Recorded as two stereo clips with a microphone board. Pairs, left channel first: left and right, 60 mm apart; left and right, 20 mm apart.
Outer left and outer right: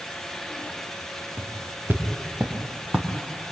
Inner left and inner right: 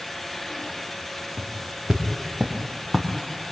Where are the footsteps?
35° right (ahead or behind), 4 m; by 3.1 s 20° right (ahead or behind), 3.5 m.